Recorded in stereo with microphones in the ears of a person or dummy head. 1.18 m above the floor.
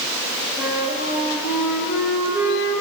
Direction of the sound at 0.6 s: 10° right (ahead or behind).